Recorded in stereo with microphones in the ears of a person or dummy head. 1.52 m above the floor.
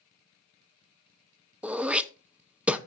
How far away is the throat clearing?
About 0.6 m.